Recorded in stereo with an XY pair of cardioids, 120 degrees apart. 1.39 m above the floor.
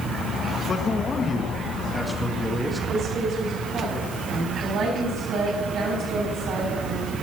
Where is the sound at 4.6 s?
60° right, 8 m.